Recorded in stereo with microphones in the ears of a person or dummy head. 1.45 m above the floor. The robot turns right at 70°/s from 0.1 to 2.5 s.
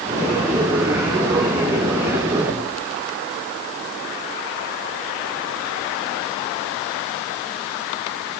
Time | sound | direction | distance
2.5 | knocking | 55° right (ahead or behind) | 8 m